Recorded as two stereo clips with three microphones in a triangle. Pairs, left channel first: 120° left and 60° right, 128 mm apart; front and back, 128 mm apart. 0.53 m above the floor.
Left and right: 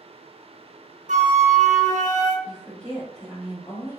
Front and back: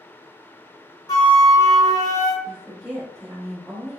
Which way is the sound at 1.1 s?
60° right.